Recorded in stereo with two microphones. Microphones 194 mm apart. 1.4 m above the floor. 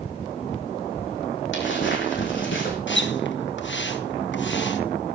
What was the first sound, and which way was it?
Footsteps, 70° left (ahead or behind).